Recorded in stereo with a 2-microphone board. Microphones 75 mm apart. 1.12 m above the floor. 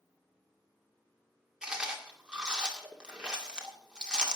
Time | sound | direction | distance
1.6 | chewing | 10° right (ahead or behind) | 2 m